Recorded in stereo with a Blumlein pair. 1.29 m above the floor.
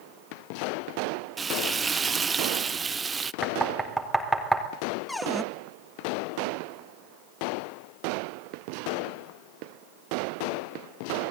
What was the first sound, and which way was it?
Frying, 15° right.